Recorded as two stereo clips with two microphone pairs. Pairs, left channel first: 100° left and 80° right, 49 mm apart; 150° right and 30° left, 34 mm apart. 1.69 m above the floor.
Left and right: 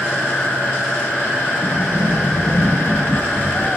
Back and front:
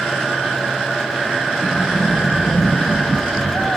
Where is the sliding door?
10° left, 4.5 m.